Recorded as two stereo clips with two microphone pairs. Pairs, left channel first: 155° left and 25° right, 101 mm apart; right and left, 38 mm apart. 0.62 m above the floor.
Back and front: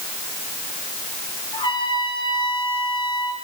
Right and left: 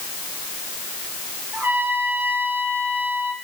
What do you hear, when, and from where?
1.5 s a trumpet: 115° left, 8 m